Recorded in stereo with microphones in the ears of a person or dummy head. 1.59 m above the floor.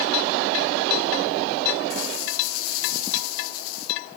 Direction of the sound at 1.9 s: 70° left (ahead or behind).